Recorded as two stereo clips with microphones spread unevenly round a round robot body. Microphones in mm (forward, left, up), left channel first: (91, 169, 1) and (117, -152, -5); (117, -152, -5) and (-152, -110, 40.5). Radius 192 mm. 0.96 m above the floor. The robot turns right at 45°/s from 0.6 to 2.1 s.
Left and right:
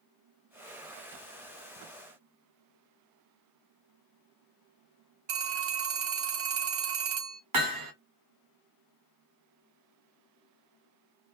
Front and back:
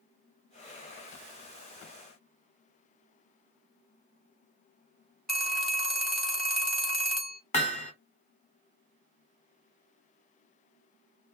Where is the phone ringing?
95° right, 1.1 m.